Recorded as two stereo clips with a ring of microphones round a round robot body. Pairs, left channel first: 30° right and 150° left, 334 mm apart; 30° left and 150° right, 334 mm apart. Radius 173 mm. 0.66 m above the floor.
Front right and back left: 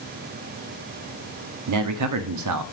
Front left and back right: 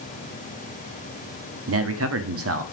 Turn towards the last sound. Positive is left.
turn(degrees=170)